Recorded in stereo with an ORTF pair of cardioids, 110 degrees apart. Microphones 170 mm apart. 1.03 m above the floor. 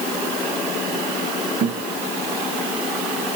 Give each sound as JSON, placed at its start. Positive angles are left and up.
{"t": 1.6, "sound": "a guitar", "azimuth_deg": -70, "distance_m": 6.5}